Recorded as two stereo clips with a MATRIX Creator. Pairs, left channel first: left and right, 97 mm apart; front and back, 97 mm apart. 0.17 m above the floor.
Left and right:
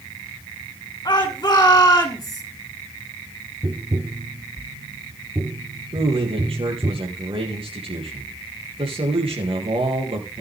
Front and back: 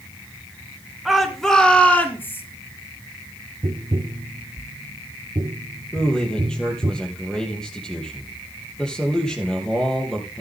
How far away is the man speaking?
About 5 m.